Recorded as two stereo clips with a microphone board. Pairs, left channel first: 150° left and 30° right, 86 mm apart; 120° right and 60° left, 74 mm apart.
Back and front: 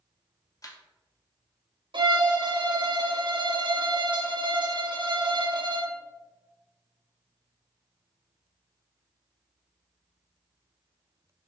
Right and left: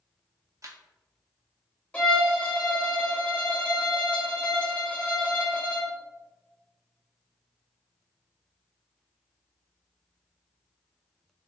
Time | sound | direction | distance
0.6 | a camera shutter | 105° left | 0.7 m
1.9 | a violin | 50° right | 0.9 m